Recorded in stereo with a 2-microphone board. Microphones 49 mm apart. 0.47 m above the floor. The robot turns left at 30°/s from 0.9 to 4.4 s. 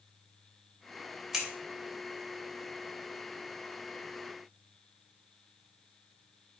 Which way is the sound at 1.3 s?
5° right (ahead or behind).